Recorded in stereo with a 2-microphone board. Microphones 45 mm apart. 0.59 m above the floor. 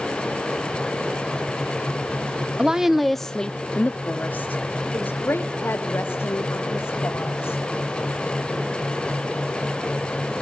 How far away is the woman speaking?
About 0.7 m.